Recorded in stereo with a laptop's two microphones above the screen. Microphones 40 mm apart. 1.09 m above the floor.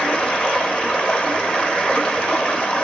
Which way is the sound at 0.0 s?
25° left (ahead or behind).